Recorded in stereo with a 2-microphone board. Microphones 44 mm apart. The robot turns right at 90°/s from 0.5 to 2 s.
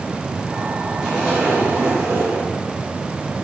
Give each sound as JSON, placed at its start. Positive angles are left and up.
{"t": 1.0, "sound": "a zipper", "azimuth_deg": 180, "distance_m": 5.5}